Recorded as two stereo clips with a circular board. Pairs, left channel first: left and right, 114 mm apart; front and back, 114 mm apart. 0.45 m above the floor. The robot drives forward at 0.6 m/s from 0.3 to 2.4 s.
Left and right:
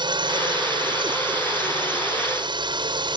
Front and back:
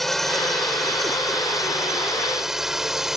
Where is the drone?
90° right; by 3.2 s 95° right.